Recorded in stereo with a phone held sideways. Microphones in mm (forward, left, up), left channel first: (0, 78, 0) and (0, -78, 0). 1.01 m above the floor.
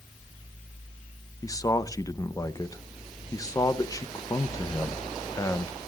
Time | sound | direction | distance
1.4 | a man speaking | 25° left (ahead or behind) | 0.7 m